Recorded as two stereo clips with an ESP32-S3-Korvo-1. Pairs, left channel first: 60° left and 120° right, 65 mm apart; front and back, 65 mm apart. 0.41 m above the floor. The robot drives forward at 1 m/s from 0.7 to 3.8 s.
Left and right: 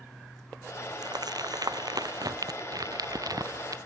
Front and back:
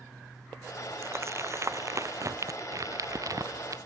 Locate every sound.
1.0 s crumpling: 130° right; by 3.8 s 145° right